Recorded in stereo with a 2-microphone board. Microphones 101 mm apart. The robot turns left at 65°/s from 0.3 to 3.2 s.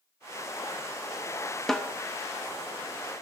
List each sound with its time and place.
1.7 s a snare drum: 5° left (ahead or behind), 0.7 m; by 1.9 s 20° left (ahead or behind), 0.7 m